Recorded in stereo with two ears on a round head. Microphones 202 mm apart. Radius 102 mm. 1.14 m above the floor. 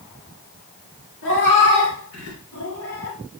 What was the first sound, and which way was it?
A cat meowing, 70° left (ahead or behind).